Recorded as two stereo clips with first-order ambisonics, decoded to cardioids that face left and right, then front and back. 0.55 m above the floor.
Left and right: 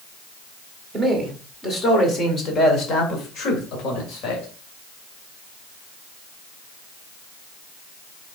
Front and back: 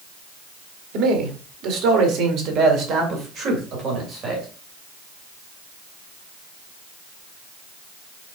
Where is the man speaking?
Straight behind, 1.9 m; by 4.5 s 120° left, 3 m.